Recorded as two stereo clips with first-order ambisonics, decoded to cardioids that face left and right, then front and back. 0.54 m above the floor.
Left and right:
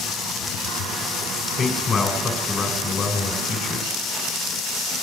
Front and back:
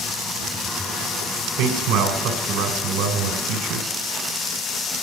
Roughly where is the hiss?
No hiss in this recording.